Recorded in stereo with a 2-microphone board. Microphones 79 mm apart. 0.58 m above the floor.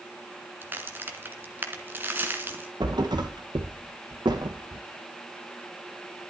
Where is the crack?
25° right (ahead or behind), 1.6 m.